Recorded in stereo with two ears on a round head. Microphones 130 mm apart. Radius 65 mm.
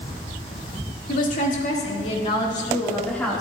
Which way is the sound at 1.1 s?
65° left (ahead or behind).